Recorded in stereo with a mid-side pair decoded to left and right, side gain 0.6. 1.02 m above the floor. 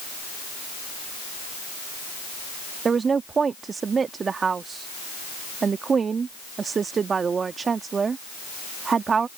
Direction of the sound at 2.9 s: 30° right.